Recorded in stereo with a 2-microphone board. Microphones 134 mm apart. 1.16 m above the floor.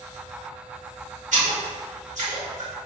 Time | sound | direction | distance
1.3 | a splash | 65° right (ahead or behind) | 1.6 m